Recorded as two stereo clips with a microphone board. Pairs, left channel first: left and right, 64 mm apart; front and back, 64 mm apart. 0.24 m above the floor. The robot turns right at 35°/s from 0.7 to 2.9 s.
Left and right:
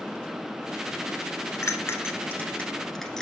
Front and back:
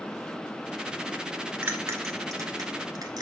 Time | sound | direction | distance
1.6 | a bell | 130° left | 1.1 m